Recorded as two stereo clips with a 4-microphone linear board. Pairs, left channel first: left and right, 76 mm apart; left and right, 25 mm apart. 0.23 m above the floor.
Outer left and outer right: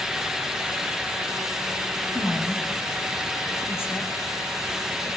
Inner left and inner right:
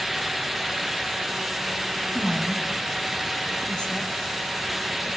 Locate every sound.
2.1 s a woman speaking: 35° left (ahead or behind), 1.9 m